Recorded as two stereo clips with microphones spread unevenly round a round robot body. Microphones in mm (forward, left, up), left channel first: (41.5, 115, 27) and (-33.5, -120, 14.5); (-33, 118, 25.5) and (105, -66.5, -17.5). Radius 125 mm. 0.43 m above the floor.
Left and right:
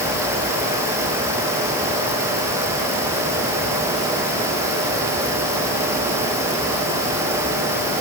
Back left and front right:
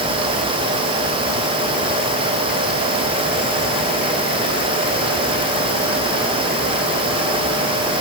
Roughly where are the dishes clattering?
No dishes clattering in this recording.